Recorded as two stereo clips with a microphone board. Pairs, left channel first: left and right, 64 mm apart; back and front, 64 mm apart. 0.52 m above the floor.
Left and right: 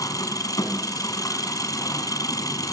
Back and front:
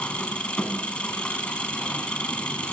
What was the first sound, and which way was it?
An engine running, 110° left.